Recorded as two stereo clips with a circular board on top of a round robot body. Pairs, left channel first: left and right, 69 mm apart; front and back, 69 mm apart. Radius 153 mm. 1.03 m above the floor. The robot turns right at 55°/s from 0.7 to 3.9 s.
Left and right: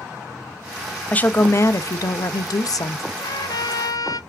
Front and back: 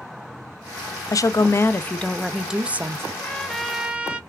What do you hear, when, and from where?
1.1 s a woman speaking: 20° left, 0.5 m; by 3.0 s 130° left, 0.5 m
3.1 s a trumpet: 65° left, 0.7 m; by 4.2 s 105° left, 0.7 m